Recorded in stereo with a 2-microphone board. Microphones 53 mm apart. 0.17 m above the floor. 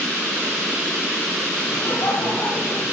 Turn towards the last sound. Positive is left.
turn(degrees=65)  # may be behind; listen again after turning